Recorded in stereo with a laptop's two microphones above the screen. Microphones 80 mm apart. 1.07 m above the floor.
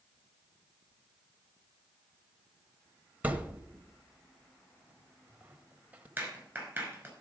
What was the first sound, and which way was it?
A thud, 20° right (ahead or behind).